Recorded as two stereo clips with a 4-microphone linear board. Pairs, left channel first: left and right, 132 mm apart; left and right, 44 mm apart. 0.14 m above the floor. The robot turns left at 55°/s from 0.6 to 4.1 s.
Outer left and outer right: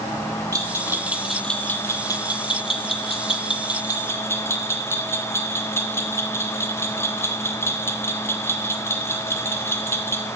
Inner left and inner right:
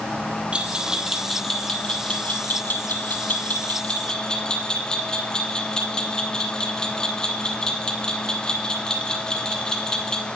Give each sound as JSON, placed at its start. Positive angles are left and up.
{"t": 0.5, "sound": "a bell", "side_deg": -25, "distance_m": 0.5}